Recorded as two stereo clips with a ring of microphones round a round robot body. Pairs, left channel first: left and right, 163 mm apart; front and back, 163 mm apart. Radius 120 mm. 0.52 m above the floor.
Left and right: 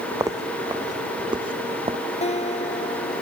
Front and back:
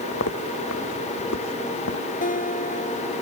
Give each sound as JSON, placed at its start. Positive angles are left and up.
{"t": 0.1, "sound": "footsteps", "azimuth_deg": -20}
{"t": 2.2, "sound": "a guitar", "azimuth_deg": 40}